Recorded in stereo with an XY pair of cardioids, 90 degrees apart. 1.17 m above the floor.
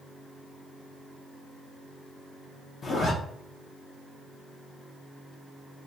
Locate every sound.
2.8 s a zipper: 50° left, 0.7 m